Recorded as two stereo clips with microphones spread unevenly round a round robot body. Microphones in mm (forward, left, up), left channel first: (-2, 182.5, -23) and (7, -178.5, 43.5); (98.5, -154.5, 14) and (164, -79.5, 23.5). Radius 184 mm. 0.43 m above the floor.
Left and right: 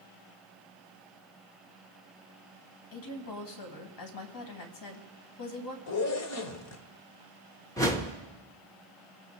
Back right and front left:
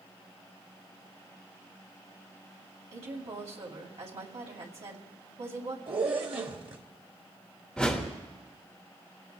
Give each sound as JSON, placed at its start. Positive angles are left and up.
{"t": 2.9, "sound": "a woman speaking", "azimuth_deg": 65, "distance_m": 2.5}
{"t": 5.9, "sound": "a zipper", "azimuth_deg": 70, "distance_m": 1.2}
{"t": 7.8, "sound": "a whoosh", "azimuth_deg": 155, "distance_m": 1.2}